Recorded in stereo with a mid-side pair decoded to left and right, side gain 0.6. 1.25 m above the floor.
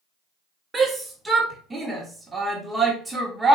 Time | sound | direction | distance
0.7 | a shout | 20° right | 1.5 m